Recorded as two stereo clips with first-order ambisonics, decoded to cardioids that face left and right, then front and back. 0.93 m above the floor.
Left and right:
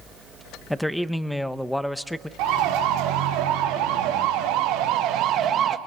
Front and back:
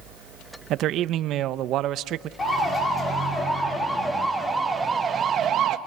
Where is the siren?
75° right, 2.5 m; by 5.8 s 145° right, 1.0 m.